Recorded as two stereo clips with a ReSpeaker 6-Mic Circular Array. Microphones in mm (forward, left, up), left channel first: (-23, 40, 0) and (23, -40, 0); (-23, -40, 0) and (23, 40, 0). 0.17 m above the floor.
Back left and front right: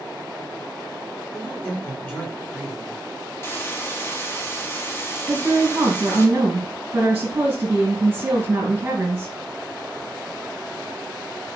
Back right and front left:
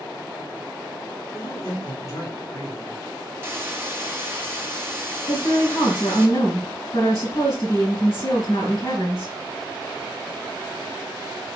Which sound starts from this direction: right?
A woman speaking, at 5.3 s.